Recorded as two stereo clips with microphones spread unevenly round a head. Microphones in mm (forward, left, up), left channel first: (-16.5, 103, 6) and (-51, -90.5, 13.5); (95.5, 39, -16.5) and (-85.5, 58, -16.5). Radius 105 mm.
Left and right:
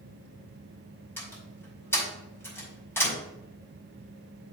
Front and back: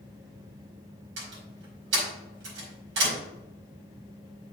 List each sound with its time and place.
1.2 s a door slam: 160° left, 4.5 m